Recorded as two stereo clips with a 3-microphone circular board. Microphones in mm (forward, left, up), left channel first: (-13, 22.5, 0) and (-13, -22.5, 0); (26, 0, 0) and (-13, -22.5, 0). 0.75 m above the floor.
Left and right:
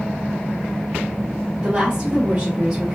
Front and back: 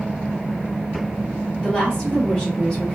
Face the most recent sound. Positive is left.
turn(degrees=-30)